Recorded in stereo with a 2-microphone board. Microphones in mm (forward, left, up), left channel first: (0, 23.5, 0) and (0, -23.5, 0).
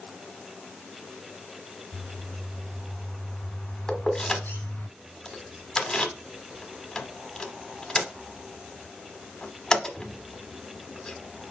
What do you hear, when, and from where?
1.9 s a bird: 45° left (ahead or behind), 2 m
3.9 s keys jangling: 10° left (ahead or behind), 0.8 m